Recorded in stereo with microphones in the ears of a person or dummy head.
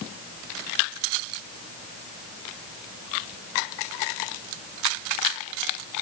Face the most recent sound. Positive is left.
No sound to turn to.